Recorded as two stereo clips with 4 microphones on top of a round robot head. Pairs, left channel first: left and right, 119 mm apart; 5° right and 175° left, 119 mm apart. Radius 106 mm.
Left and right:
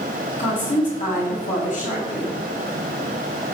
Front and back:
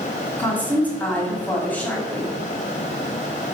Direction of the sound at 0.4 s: 70° left.